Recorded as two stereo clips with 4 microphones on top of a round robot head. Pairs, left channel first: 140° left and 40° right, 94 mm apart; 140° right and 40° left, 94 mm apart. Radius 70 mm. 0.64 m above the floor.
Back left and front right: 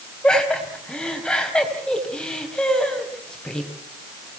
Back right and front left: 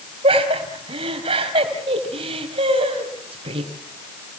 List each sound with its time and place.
0.2 s laughter: 60° left, 4.5 m